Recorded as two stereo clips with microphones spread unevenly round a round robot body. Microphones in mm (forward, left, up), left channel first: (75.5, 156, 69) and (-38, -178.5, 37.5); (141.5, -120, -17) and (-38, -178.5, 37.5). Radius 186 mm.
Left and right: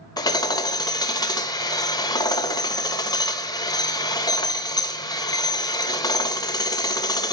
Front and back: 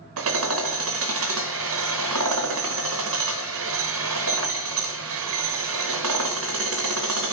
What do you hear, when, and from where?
0.2 s hammering: 150° left, 0.8 m